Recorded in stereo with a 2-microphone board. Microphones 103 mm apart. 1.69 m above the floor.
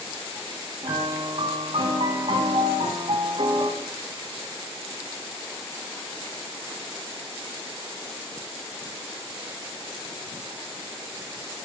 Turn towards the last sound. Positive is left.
turn(degrees=-70)  # may be behind; listen again after turning